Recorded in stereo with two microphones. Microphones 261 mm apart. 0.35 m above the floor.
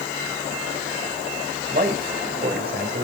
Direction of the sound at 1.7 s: 35° right (ahead or behind).